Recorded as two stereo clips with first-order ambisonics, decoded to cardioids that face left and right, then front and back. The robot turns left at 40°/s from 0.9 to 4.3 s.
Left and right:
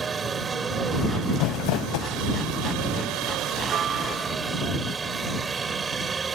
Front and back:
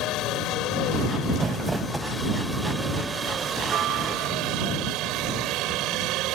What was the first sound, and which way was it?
A helicopter, 25° right.